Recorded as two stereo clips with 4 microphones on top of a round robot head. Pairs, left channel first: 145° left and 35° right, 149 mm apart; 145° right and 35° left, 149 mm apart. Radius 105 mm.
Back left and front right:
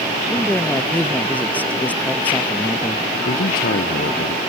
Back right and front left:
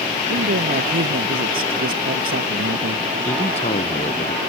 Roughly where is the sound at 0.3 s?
Ahead left.